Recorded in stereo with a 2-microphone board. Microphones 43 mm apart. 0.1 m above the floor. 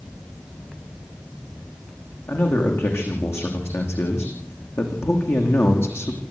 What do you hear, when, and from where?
2.3 s a man speaking: 80° left, 9 m; by 6.2 s 75° left (ahead or behind), 6 m